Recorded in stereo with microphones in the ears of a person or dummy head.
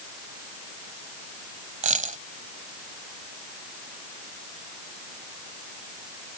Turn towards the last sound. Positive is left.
turn(degrees=-45)  # may be behind; listen again after turning